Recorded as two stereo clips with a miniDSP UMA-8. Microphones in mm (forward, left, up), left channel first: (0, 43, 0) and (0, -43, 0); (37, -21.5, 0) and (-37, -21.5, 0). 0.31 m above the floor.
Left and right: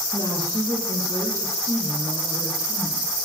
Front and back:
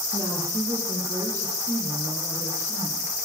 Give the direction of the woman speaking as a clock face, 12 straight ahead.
5 o'clock.